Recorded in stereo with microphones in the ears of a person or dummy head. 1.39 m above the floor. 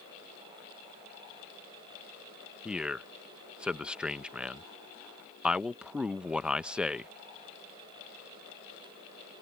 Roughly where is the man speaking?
Centre.